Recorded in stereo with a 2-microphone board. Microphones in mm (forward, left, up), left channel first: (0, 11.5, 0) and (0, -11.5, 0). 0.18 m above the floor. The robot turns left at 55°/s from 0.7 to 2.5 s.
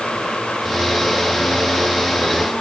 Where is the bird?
No bird in this recording.